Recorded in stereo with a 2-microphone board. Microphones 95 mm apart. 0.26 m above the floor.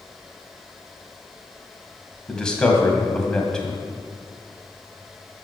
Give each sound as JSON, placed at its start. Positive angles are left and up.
{"t": 2.3, "sound": "a man speaking", "side_deg": 10, "distance_m": 1.9}